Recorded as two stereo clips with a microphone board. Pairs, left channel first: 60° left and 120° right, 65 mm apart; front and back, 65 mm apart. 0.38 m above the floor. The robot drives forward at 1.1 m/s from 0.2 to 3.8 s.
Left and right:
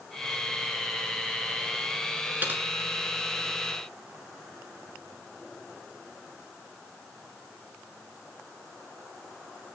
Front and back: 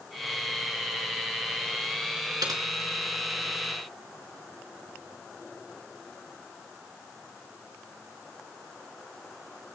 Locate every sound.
2.4 s typing on a keyboard: straight behind, 4 m